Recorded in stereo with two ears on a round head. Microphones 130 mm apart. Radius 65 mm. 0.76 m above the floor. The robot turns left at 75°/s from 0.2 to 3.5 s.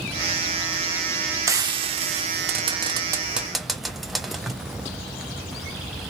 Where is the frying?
20° right (ahead or behind), 0.7 m; by 4.5 s centre (ahead or behind), 0.7 m.